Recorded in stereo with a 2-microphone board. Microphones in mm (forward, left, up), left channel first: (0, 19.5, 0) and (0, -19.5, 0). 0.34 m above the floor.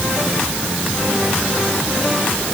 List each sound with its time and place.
Only background noise.